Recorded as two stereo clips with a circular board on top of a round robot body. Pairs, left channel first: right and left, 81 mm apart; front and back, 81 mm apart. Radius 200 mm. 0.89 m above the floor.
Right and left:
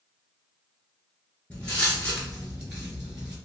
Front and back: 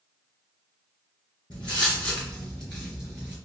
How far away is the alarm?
No alarm in this recording.